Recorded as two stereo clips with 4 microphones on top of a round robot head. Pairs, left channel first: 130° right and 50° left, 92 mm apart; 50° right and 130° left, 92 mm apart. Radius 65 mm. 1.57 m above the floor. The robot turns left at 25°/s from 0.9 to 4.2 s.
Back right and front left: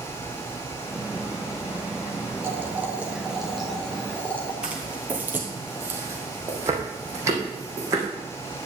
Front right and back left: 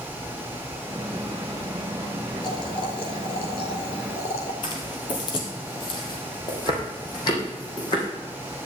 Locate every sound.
2.4 s boiling: 10° right, 2 m; by 4.5 s 55° right, 2 m
4.6 s footsteps: 30° right, 1.9 m; by 8.1 s 5° right, 4.5 m